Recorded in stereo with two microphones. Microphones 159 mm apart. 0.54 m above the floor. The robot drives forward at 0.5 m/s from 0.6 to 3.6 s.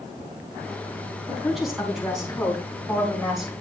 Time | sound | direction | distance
1.3 | a woman speaking | centre (ahead or behind) | 4 m